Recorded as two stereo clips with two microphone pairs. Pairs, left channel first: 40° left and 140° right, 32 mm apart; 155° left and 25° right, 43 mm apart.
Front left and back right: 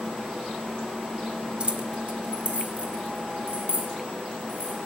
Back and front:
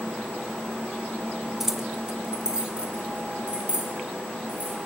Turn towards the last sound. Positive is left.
turn(degrees=-85)